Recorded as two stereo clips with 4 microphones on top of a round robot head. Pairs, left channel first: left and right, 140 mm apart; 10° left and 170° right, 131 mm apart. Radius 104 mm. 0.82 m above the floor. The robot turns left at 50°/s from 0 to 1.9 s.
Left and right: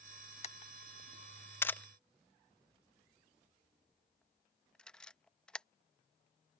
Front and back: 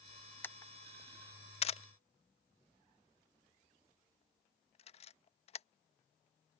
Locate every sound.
0.4 s a camera shutter: 80° left; by 5.7 s 5° left